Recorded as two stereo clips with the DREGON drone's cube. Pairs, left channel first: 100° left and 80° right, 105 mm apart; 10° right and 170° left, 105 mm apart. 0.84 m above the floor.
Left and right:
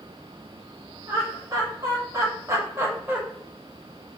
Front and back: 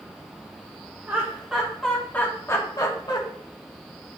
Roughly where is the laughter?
Behind right.